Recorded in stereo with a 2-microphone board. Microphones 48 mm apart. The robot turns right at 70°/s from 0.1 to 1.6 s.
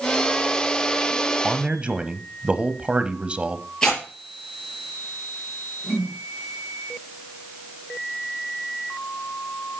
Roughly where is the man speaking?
Right.